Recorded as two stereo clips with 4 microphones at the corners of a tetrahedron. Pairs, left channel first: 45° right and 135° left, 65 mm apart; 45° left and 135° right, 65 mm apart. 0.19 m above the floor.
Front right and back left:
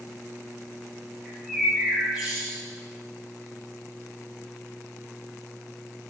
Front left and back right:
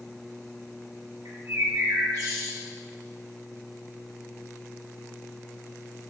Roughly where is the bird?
Behind right.